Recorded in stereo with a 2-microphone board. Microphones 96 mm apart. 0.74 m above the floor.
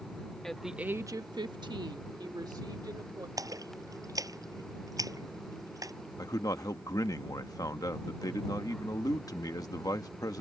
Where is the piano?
No piano in this recording.